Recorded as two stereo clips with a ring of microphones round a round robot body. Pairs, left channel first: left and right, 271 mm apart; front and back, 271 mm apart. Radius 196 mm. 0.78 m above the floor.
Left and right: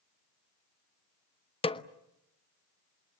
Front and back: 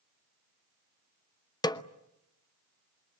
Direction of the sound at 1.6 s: 55° left.